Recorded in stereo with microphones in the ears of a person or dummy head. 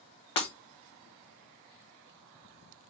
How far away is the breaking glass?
About 1.0 m.